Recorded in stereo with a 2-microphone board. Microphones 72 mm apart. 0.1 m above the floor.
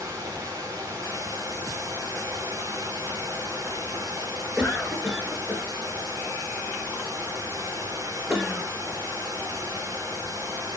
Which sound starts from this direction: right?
Running water, at 0.0 s.